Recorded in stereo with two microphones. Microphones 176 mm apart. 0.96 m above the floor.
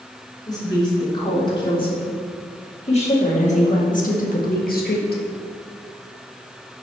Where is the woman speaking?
25° left (ahead or behind), 3 m; by 5.2 s 60° left (ahead or behind), 1.4 m.